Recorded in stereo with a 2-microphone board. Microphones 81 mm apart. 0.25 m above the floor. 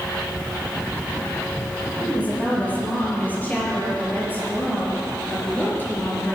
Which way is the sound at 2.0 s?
20° left (ahead or behind).